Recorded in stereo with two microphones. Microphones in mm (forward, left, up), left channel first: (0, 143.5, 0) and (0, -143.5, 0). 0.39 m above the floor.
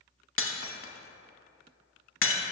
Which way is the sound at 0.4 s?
50° left (ahead or behind).